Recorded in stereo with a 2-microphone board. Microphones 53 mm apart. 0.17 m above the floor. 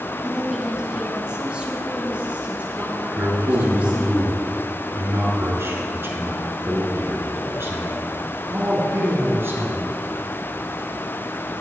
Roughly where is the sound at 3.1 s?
Right.